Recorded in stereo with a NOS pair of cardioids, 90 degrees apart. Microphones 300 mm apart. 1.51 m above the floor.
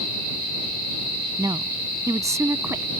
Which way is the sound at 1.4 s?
10° right.